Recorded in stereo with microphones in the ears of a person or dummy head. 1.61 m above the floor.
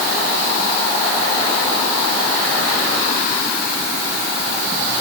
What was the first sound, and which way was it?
Only background noise.